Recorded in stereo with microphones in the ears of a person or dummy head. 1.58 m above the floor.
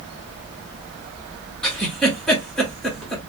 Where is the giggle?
5° left (ahead or behind), 1.4 m.